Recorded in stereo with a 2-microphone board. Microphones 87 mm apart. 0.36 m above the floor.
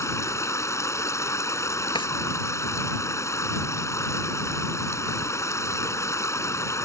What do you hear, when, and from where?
0.0 s running water: 35° left (ahead or behind)
1.9 s a drawer: 75° left (ahead or behind)